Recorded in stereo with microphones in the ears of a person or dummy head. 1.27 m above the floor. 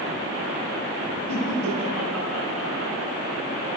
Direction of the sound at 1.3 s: Centre (ahead or behind).